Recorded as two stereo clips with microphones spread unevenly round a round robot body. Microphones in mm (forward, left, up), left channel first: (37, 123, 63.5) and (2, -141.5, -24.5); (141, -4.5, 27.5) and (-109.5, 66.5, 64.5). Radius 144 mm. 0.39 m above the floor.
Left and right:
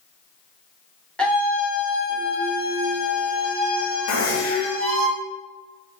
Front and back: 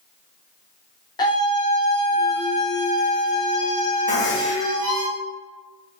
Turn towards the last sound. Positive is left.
turn(degrees=40)